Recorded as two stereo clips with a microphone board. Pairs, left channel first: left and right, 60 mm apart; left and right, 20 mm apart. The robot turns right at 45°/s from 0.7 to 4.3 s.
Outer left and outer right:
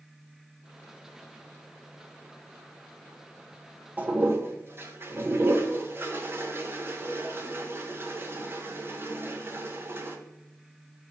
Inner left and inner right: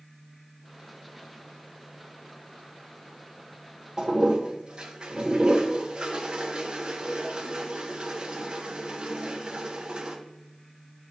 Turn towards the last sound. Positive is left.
turn(degrees=-35)  # may be behind; listen again after turning